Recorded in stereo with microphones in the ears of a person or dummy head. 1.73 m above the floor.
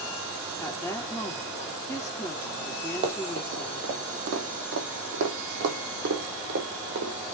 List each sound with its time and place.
0.6 s a woman speaking: 10° left (ahead or behind), 2.5 m
3.0 s running footsteps: 35° right (ahead or behind), 2.5 m; by 7.1 s 55° right (ahead or behind), 4 m